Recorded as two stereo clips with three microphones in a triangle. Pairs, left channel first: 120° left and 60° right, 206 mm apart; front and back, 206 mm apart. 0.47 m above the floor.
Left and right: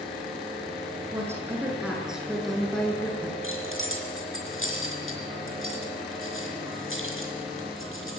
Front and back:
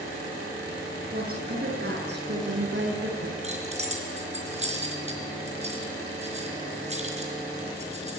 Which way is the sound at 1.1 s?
135° right.